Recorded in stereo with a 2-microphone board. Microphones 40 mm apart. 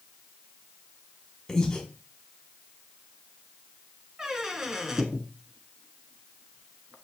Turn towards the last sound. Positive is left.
turn(degrees=-15)  # may be behind; listen again after turning